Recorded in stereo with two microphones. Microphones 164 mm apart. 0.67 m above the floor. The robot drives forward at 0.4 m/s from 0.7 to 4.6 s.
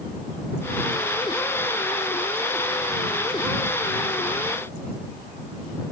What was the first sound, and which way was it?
Only background noise.